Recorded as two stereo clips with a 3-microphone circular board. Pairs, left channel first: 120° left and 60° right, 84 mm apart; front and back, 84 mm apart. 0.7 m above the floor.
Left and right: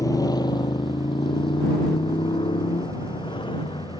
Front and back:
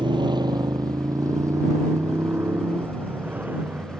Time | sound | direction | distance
0.0 | a motorcycle | 165° left | ?